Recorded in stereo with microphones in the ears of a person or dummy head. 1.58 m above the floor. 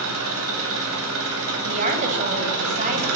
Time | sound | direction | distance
0.0 | an engine running | 85° right | 9.5 m
1.6 | a woman speaking | 40° right (ahead or behind) | 9 m